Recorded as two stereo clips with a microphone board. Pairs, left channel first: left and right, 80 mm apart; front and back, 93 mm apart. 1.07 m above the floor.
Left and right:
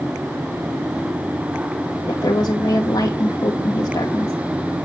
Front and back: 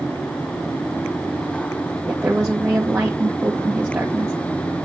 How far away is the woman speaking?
About 1.5 m.